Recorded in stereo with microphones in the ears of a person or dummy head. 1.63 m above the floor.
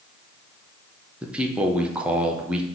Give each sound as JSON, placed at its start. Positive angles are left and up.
{"t": 1.2, "sound": "a man speaking", "side_deg": -5, "distance_m": 0.6}